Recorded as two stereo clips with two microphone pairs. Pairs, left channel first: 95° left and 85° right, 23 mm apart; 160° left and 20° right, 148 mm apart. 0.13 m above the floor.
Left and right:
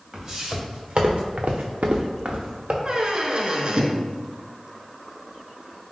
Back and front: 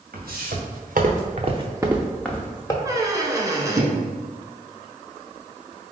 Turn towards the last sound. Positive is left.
turn(degrees=-75)